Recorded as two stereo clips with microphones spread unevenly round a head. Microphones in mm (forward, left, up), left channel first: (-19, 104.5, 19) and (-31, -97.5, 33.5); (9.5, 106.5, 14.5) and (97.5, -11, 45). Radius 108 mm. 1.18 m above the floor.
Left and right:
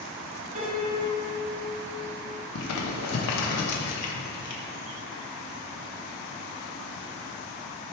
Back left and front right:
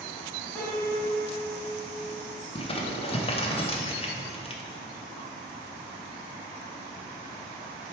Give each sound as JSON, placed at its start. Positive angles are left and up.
{"t": 0.6, "sound": "a piano", "azimuth_deg": -145, "distance_m": 2.0}
{"t": 2.5, "sound": "crumpling", "azimuth_deg": 75, "distance_m": 1.0}